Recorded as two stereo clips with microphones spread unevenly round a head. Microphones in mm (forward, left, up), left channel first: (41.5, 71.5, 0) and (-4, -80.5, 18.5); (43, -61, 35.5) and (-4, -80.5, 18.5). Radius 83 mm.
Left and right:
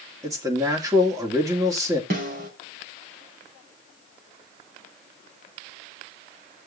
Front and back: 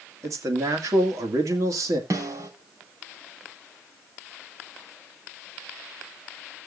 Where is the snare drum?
145° right, 4.5 m.